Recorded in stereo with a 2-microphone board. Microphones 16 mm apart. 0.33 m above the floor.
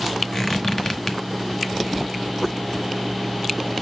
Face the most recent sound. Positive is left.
turn(degrees=30)  # may be behind; listen again after turning